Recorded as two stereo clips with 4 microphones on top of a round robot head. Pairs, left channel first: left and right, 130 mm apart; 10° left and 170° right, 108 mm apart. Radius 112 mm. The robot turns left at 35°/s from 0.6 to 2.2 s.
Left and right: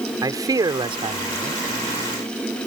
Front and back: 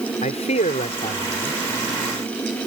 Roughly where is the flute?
I don't hear a flute.